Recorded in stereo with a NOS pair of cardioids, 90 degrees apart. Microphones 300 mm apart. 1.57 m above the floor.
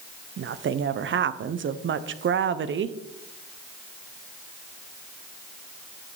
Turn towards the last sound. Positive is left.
turn(degrees=-40)